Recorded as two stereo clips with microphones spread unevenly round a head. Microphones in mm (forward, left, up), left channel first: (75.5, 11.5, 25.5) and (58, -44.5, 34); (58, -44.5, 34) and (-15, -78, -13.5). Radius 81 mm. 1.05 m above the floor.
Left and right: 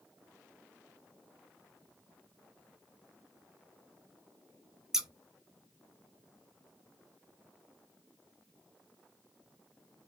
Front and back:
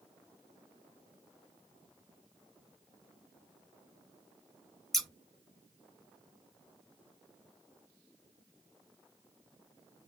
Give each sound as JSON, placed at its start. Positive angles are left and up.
{"t": 4.9, "sound": "scissors", "azimuth_deg": -35, "distance_m": 0.6}